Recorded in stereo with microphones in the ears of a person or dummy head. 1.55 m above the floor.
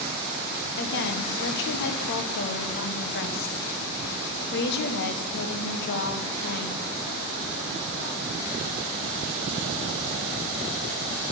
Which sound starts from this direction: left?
A woman speaking, at 0.8 s.